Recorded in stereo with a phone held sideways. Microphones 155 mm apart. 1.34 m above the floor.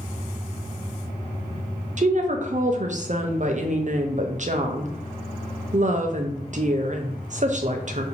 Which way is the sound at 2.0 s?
50° right (ahead or behind).